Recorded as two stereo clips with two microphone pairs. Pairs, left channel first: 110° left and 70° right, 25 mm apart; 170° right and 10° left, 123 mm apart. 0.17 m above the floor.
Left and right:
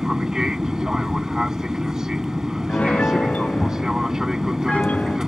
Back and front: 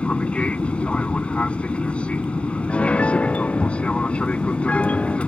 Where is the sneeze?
I don't hear a sneeze.